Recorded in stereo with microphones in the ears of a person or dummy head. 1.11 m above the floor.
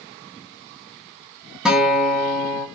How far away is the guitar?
About 1.1 m.